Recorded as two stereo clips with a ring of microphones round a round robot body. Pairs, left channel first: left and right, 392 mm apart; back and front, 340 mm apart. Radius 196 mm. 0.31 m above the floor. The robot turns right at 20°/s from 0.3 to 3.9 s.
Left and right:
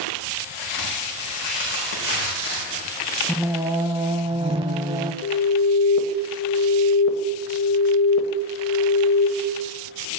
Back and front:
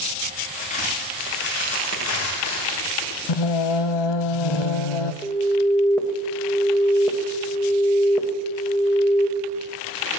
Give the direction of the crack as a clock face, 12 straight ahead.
8 o'clock.